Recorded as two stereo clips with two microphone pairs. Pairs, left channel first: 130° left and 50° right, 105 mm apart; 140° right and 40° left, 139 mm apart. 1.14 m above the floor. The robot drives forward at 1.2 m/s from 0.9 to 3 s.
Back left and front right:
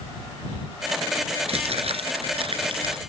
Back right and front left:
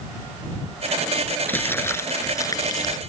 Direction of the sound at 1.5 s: 65° right.